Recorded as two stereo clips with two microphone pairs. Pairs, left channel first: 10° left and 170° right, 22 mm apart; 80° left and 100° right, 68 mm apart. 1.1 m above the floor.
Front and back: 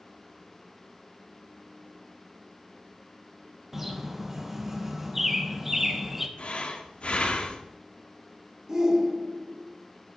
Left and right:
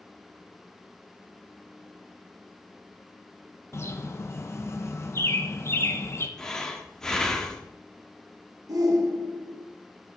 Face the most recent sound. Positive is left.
turn(degrees=-100)